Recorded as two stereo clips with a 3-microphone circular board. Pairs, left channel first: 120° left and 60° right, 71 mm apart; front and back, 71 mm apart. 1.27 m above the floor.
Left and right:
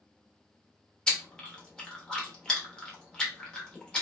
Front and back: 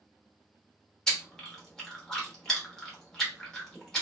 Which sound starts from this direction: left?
Chewing, at 1.1 s.